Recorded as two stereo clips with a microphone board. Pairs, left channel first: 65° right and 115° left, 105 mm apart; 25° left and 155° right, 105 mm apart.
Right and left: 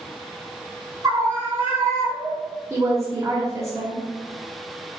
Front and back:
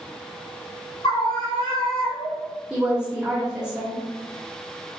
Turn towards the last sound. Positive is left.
turn(degrees=135)